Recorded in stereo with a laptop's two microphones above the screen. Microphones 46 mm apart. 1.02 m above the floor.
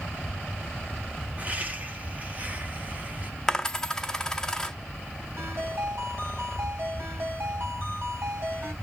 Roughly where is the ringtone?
Right.